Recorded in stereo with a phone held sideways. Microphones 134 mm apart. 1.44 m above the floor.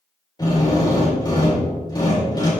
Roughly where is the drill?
Left.